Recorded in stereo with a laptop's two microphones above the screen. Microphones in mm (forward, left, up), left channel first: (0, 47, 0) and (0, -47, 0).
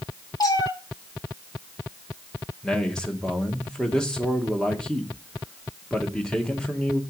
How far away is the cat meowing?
About 2.5 m.